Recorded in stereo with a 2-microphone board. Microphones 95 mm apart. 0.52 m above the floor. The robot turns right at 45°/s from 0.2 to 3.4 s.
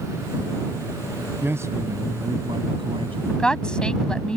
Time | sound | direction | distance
1.4 | a man speaking | 160° right | ?
3.3 | a woman speaking | 15° left (ahead or behind) | ?